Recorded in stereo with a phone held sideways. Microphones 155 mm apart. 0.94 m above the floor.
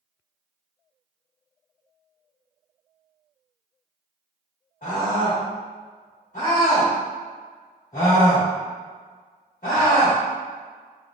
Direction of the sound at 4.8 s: 60° left (ahead or behind).